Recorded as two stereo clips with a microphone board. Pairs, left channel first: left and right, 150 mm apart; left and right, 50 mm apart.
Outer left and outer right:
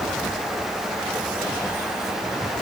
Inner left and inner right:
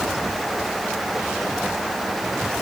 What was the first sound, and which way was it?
Only background noise.